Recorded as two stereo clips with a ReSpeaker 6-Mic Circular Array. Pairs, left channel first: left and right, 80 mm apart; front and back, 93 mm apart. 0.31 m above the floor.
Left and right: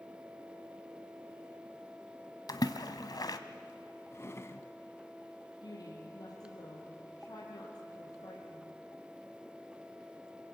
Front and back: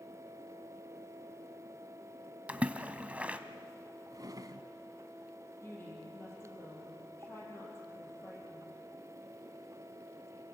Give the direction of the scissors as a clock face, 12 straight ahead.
No scissors in this recording.